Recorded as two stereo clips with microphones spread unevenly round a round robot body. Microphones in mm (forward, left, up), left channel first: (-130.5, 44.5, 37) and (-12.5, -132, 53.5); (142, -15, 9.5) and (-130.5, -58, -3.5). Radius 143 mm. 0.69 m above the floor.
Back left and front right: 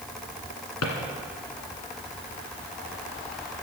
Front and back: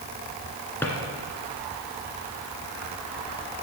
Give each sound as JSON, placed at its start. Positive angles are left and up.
{"t": 0.8, "sound": "a drawer", "azimuth_deg": 90, "distance_m": 1.8}